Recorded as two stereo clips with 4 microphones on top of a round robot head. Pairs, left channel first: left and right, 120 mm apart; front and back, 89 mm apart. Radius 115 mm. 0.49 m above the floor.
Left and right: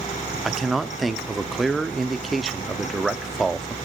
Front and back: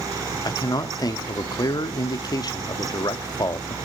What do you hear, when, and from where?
0.5 s a man speaking: straight ahead, 0.9 m